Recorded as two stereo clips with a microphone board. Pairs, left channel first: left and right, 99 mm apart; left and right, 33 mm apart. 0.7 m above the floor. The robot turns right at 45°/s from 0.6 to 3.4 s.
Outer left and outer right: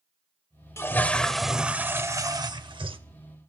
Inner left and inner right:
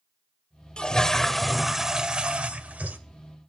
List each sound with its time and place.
0.8 s a toilet flushing: 150° left, 0.7 m; by 3.0 s 110° right, 0.7 m